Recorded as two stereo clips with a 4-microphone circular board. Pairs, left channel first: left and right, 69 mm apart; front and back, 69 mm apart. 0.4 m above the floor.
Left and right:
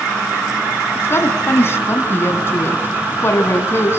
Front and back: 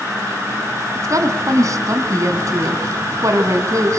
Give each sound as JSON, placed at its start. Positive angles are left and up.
{"t": 0.9, "sound": "a woman speaking", "azimuth_deg": 145, "distance_m": 3.0}